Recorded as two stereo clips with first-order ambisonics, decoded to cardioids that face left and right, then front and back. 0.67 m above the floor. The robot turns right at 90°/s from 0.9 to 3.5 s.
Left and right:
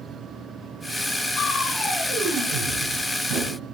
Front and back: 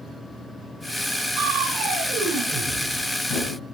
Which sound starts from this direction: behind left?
Crushing, at 1.4 s.